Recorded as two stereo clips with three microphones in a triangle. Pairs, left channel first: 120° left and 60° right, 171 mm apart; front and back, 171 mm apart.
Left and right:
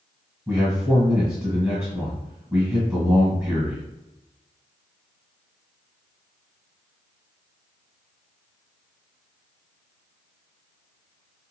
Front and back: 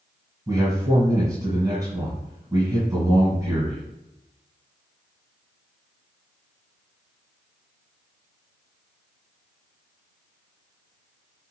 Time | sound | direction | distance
0.5 | a man speaking | 135° right | 1.5 m